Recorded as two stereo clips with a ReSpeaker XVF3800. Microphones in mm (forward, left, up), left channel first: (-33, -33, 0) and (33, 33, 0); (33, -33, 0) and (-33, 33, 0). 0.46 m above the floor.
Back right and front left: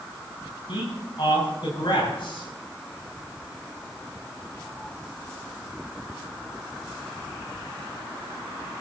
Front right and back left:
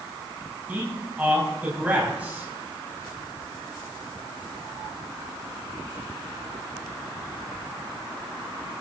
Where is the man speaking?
155° right, 3.5 m.